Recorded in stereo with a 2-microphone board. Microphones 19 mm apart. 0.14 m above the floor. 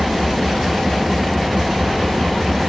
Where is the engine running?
20° right (ahead or behind).